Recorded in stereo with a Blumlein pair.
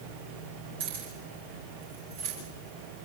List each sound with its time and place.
0.8 s keys jangling: 55° right, 7.5 m; by 2.4 s 50° right, 8.5 m